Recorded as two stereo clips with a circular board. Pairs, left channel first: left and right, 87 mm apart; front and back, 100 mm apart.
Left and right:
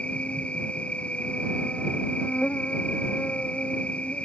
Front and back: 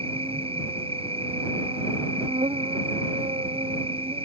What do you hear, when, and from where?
0.0 s an insect: 165° left